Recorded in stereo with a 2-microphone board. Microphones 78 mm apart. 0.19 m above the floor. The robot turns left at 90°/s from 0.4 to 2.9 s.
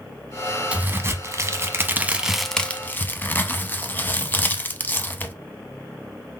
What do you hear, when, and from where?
0.7 s a crack: 25° right, 0.5 m; by 5.3 s 135° left, 0.5 m